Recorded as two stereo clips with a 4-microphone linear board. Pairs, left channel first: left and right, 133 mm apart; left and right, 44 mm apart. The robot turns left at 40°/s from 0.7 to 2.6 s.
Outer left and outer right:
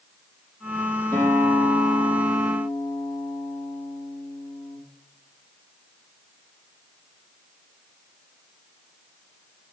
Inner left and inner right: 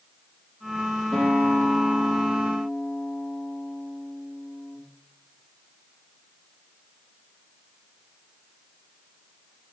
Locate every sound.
1.1 s a guitar: 170° left, 4.5 m; by 4.8 s 110° left, 4.5 m